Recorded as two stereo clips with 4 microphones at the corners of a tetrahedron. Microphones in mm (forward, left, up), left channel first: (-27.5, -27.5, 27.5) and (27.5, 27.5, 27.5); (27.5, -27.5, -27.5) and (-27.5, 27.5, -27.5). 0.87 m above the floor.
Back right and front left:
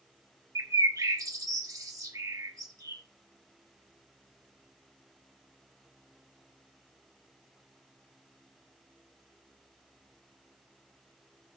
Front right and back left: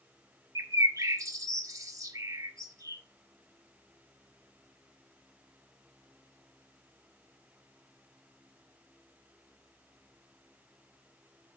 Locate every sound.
0.6 s a bird: 90° left, 1.2 m